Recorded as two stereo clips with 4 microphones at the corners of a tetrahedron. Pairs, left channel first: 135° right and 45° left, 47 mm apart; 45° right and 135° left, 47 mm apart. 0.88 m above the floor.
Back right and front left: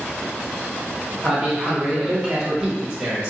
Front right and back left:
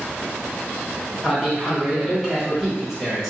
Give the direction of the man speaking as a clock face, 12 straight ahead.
10 o'clock.